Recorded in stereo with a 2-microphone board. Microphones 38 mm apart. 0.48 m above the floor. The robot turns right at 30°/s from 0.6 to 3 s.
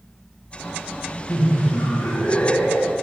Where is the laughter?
70° left, 2.5 m; by 2.9 s 120° left, 2.5 m.